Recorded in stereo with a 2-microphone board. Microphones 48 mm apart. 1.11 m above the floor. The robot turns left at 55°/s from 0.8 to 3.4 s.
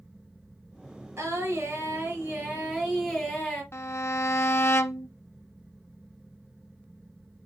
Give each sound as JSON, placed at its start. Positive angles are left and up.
{"t": 1.2, "sound": "singing", "azimuth_deg": -70, "distance_m": 5.0}
{"t": 3.7, "sound": "a violin", "side_deg": 60, "distance_m": 0.6}